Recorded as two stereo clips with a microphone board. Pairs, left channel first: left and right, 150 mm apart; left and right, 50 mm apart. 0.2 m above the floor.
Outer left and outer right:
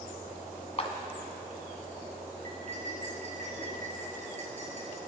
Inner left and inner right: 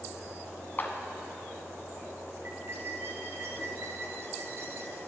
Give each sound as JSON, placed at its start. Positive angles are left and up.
{"t": 0.8, "sound": "a clap", "side_deg": 40, "distance_m": 1.4}
{"t": 2.4, "sound": "cutlery clinking", "side_deg": -50, "distance_m": 2.5}